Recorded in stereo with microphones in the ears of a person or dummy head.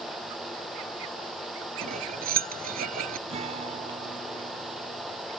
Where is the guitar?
35° right (ahead or behind).